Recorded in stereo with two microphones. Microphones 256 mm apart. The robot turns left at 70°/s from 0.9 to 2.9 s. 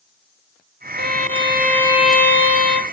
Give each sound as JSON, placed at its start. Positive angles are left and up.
{"t": 1.0, "sound": "a violin", "azimuth_deg": -100, "distance_m": 1.7}